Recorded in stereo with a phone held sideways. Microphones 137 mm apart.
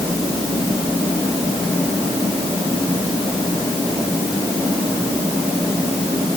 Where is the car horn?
I don't hear a car horn.